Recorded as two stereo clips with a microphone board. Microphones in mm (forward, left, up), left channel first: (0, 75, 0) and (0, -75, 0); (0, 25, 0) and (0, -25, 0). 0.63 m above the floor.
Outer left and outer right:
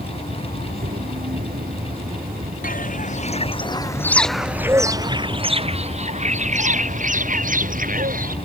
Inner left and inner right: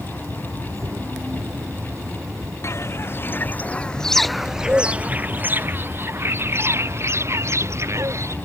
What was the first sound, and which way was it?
An insect, 70° right (ahead or behind).